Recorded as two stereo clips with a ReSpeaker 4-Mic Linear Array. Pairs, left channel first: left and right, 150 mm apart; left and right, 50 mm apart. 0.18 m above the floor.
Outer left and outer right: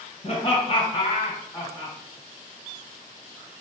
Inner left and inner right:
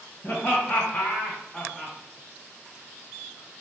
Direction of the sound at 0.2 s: 45° left (ahead or behind).